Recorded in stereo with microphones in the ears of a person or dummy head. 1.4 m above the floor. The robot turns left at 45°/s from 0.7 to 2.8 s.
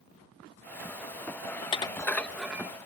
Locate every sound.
1.6 s dishes clattering: 30° left (ahead or behind); by 2.7 s 10° right (ahead or behind)